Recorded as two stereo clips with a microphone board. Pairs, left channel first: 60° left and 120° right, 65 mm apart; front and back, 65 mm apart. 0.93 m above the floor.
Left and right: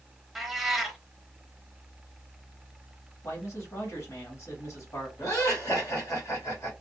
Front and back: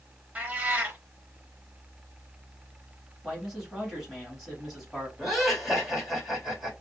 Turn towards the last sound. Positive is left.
turn(degrees=100)